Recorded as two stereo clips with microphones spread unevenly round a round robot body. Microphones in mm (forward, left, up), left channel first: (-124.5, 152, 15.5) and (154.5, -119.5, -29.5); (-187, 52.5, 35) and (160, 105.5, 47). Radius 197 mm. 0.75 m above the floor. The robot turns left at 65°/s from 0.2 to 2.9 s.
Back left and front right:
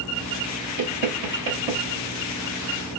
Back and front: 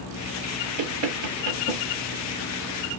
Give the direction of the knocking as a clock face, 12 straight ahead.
12 o'clock.